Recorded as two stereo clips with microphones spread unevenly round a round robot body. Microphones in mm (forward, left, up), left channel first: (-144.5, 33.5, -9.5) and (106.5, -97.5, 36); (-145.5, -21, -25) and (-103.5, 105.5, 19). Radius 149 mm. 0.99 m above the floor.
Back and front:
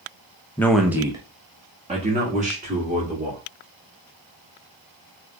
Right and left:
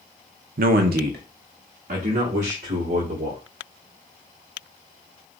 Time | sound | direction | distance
0.6 | a man speaking | 80° left | 0.6 m